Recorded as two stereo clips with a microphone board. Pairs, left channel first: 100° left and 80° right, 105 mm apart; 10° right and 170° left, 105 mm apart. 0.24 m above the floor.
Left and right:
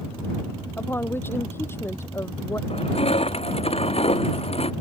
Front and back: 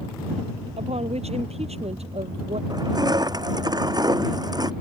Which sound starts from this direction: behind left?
Crushing, at 2.7 s.